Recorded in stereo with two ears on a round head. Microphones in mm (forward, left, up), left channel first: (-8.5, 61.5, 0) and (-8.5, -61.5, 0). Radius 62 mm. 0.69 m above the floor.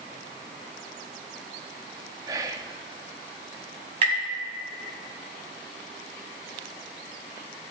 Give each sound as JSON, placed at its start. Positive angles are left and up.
{"t": 2.3, "sound": "whispering", "side_deg": -25, "distance_m": 0.7}
{"t": 4.0, "sound": "tapping", "side_deg": -45, "distance_m": 4.5}